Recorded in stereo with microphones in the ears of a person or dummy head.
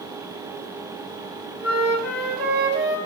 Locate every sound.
1.6 s a flute: 40° right (ahead or behind), 5.5 m